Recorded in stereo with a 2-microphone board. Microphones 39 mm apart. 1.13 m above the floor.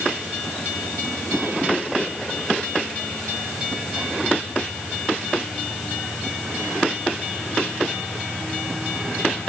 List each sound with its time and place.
Only background noise.